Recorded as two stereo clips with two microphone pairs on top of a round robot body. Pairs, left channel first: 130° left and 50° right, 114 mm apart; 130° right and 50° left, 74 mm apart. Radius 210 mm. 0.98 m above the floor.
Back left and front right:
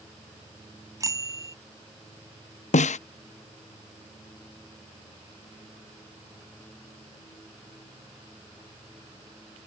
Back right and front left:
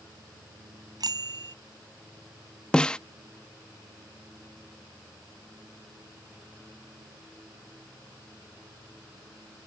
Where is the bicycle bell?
15° left.